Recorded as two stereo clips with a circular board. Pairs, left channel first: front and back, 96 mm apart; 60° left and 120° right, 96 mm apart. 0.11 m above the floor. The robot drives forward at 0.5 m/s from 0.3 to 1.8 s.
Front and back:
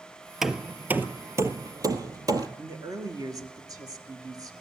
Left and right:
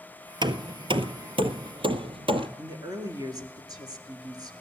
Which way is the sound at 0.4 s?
95° right.